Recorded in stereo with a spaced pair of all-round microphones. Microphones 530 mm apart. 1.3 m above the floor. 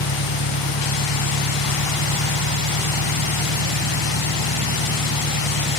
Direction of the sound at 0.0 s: 50° left (ahead or behind).